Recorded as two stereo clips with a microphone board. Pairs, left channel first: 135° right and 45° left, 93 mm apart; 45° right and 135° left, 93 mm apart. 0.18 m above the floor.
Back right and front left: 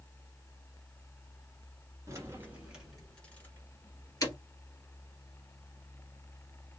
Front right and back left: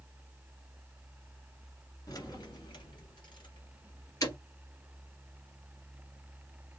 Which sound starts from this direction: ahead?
Keys jangling, at 2.1 s.